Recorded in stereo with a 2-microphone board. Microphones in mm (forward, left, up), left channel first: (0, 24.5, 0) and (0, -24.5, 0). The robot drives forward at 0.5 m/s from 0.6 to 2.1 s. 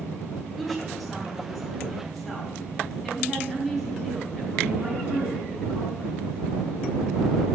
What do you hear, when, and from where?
0.6 s a woman speaking: centre (ahead or behind), 4 m